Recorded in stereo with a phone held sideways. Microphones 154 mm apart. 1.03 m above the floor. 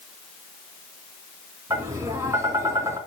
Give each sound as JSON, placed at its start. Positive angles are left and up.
{"t": 1.7, "sound": "tapping", "side_deg": -20, "distance_m": 4.0}